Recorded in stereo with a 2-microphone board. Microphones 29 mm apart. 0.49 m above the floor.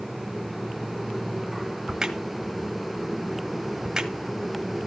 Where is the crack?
20° right (ahead or behind), 1.4 m.